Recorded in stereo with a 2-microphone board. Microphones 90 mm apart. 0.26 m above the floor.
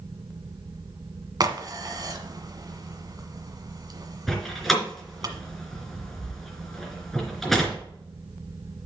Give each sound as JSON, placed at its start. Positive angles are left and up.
{"t": 1.4, "sound": "a crack", "side_deg": -45, "distance_m": 1.4}
{"t": 4.3, "sound": "a door slam", "side_deg": 5, "distance_m": 3.0}